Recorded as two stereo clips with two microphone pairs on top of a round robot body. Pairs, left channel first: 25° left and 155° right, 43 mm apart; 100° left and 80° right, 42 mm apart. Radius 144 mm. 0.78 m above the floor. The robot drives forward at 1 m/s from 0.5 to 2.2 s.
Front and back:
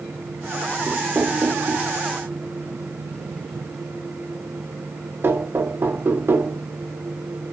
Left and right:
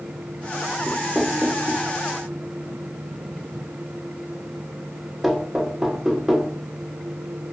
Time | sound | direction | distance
0.9 | knocking | 155° right | 1.0 m